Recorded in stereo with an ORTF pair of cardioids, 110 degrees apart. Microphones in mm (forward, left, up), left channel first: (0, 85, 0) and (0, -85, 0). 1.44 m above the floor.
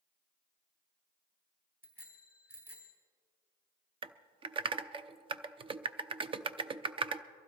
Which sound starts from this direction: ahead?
A bicycle bell, at 1.8 s.